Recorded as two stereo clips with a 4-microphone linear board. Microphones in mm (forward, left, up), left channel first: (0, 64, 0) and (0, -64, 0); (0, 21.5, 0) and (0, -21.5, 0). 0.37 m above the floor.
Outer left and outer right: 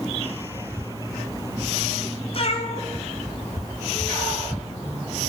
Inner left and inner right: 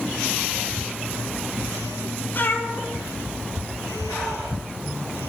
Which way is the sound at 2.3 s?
50° left (ahead or behind).